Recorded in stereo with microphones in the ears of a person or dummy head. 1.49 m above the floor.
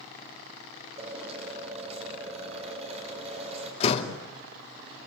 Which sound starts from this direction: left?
A door slam, at 3.8 s.